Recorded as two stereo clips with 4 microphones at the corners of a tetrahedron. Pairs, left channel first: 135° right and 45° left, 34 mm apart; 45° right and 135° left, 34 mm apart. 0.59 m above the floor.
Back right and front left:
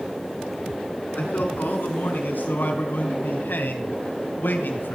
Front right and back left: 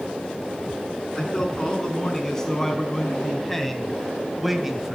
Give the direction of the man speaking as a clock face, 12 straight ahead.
4 o'clock.